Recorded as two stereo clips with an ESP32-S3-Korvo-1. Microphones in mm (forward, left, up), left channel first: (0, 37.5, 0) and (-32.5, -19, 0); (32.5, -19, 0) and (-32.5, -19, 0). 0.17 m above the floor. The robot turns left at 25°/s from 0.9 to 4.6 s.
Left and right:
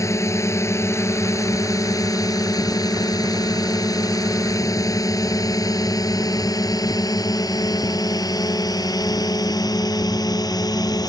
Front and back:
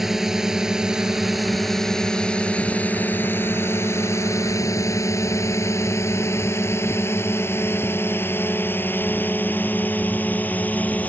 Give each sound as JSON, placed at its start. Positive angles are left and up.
{"t": 0.0, "sound": "a drone", "azimuth_deg": 95}